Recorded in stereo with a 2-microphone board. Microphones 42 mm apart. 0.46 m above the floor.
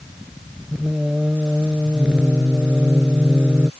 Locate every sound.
0.7 s singing: 25° right (ahead or behind)